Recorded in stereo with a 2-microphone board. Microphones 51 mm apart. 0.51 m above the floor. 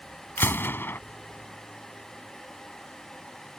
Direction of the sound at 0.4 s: 45° left (ahead or behind).